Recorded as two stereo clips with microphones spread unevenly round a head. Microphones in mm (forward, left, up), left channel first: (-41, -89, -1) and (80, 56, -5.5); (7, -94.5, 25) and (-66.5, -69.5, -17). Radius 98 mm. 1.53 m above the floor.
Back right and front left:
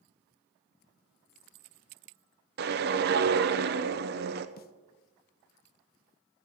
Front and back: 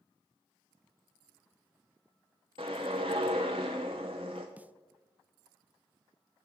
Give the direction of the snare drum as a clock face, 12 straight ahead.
4 o'clock.